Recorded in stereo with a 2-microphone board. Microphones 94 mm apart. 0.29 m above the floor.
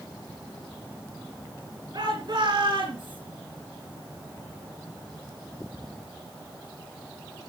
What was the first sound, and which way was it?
A shout, 55° right (ahead or behind).